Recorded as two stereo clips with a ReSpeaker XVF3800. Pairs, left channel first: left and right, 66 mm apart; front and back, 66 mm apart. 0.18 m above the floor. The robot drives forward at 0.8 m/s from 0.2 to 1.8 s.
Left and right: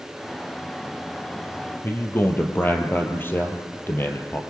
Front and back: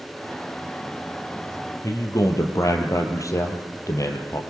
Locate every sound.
1.8 s a man speaking: 35° left, 4 m